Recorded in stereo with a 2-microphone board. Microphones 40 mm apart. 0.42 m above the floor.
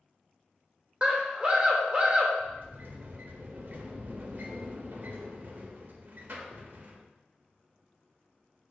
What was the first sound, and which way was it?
A scream, 25° right (ahead or behind).